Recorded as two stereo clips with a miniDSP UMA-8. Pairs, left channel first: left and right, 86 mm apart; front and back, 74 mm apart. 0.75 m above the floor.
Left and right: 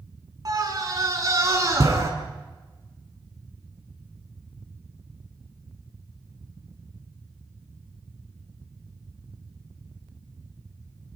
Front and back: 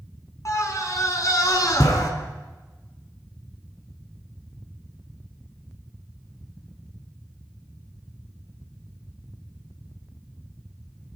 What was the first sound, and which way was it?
A scream, 45° right.